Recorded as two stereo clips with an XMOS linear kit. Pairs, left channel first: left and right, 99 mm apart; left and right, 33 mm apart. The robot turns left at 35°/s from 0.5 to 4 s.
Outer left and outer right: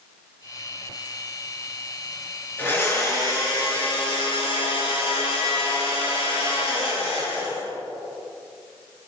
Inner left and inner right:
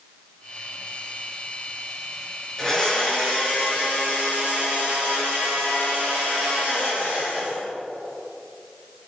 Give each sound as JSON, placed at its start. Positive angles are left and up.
{"t": 2.6, "sound": "a blender", "azimuth_deg": 160, "distance_m": 6.0}